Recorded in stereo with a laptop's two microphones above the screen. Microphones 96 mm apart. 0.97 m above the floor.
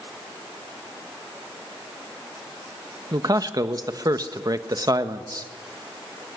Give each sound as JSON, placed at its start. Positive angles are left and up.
{"t": 3.1, "sound": "a man speaking", "side_deg": -40, "distance_m": 1.3}